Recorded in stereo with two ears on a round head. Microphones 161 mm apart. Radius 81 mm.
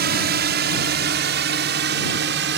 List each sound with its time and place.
0.0 s a drone: 60° right (ahead or behind); by 2.6 s 65° right (ahead or behind)